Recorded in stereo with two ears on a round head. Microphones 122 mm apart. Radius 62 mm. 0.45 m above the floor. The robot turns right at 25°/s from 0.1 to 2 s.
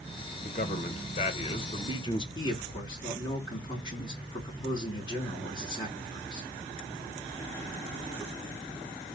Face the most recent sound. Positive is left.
turn(degrees=35)  # may be behind; listen again after turning